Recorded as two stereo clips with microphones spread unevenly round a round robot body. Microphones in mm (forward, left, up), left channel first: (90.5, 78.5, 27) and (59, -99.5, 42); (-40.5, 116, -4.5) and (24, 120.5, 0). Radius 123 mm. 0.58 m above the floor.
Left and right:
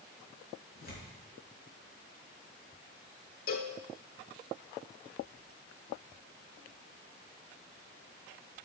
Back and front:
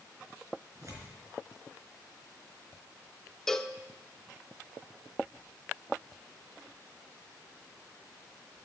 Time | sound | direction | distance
0.8 | tearing paper | 45° left | 4 m
3.5 | a cowbell | 105° left | 0.7 m